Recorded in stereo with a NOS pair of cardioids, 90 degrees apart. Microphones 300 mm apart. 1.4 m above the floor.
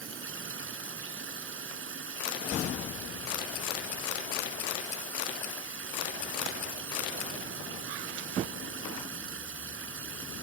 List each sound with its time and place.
0.0 s running water: 45° right